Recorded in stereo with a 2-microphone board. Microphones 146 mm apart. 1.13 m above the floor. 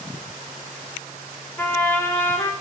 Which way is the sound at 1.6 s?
15° left (ahead or behind).